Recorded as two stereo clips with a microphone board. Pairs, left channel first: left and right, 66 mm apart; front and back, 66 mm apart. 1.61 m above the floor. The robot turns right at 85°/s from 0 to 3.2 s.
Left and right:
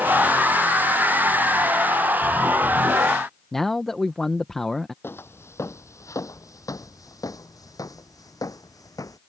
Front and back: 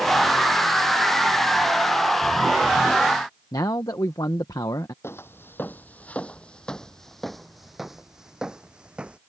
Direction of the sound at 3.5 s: 5° left.